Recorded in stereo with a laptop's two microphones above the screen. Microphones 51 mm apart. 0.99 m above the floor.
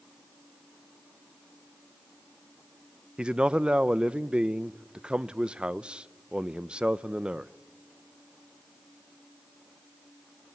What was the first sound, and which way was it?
A man speaking, 20° right (ahead or behind).